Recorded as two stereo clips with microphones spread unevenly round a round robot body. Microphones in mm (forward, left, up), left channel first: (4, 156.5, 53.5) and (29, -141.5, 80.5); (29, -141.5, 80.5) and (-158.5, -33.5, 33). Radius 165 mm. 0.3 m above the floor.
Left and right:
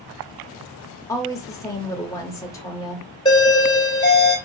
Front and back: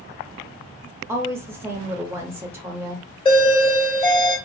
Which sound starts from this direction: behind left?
A woman speaking, at 1.1 s.